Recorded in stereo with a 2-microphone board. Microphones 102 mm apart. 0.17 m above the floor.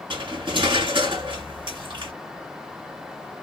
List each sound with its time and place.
0.1 s cutlery clinking: 55° right (ahead or behind), 1.4 m